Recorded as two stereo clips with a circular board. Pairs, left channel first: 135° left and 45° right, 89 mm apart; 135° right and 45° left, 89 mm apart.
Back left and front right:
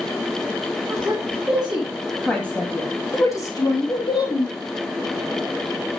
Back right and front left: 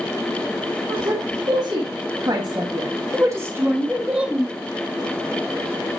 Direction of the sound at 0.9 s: 25° left.